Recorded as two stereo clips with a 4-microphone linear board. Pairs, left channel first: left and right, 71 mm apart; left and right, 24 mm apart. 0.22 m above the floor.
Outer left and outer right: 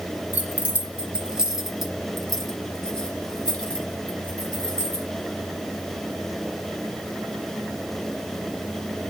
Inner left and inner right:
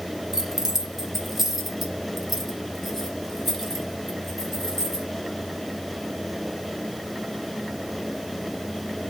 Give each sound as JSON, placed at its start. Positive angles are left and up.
{"t": 0.3, "sound": "keys jangling", "side_deg": -20, "distance_m": 1.1}